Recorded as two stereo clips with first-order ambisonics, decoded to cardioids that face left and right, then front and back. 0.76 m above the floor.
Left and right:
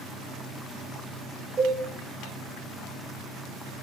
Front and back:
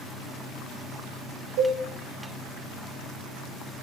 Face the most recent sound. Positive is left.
turn(degrees=-150)